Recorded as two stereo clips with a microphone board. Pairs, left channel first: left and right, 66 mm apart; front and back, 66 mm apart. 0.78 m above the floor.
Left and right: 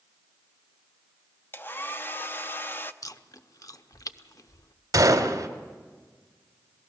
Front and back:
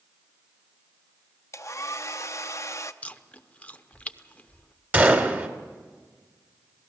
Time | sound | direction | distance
1.5 | a hair dryer | 35° left | 0.6 m
3.0 | chewing | 65° left | 0.7 m
4.9 | a gunshot | 120° right | 1.7 m